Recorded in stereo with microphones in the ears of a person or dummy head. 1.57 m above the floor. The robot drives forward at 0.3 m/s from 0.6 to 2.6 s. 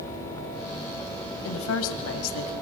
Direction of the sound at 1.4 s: 75° left (ahead or behind).